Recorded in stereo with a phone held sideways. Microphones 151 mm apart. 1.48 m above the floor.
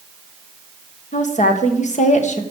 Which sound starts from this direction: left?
A woman speaking, at 1.1 s.